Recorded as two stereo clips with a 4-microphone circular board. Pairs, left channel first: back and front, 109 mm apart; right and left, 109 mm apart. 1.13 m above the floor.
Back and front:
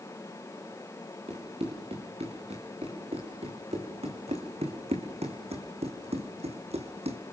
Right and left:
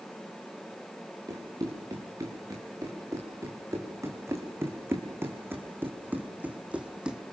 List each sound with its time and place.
1.3 s running footsteps: 30° left, 6 m; by 7.2 s 5° left, 2.5 m